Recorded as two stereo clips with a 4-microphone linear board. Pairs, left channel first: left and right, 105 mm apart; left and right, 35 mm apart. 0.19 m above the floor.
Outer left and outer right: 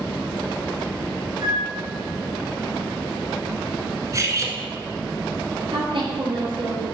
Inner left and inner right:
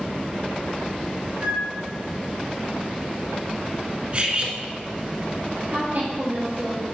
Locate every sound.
1.4 s a flute: 40° right (ahead or behind), 3.5 m
4.1 s cutlery clinking: 35° right (ahead or behind), 1.3 m
5.7 s a woman speaking: 65° right (ahead or behind), 4.5 m